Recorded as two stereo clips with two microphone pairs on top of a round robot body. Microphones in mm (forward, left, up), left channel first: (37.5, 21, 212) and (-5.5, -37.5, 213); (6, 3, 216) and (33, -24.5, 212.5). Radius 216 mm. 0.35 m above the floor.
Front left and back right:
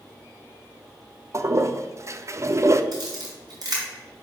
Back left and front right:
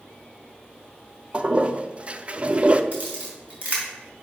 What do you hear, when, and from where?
1.3 s a toilet flushing: 90° right, 0.7 m
2.9 s a camera shutter: 95° right, 3 m